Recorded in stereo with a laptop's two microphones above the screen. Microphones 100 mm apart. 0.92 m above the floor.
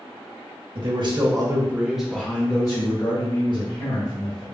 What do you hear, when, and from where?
0.8 s a man speaking: 55° right (ahead or behind), 1.0 m; by 4.4 s 60° left (ahead or behind), 1.9 m